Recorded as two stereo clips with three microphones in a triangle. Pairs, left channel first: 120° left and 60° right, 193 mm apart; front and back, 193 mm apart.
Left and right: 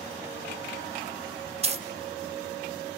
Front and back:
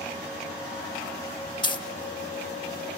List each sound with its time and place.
1.6 s a dropped coin: 45° right, 0.5 m